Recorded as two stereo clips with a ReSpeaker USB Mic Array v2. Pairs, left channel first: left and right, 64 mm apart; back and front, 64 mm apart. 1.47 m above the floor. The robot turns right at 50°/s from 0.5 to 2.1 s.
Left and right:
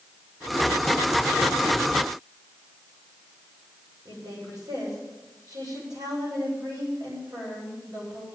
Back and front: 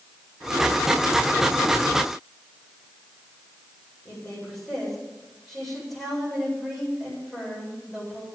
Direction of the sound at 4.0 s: 95° right.